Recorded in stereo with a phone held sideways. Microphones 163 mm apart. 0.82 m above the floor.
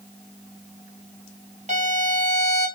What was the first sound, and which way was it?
A violin, 45° right (ahead or behind).